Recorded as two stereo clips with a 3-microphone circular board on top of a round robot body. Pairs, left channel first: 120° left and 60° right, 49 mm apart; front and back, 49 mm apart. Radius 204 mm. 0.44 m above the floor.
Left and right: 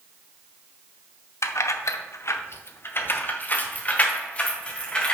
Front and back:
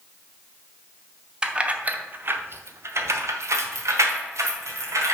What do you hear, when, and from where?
1.4 s keys jangling: 110° left, 0.9 m; by 5.1 s 175° right, 1.9 m